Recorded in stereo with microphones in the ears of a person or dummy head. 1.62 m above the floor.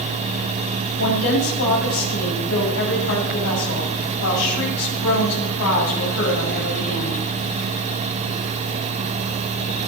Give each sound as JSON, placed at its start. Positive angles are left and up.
{"t": 1.0, "sound": "a woman speaking", "side_deg": 85, "distance_m": 8.0}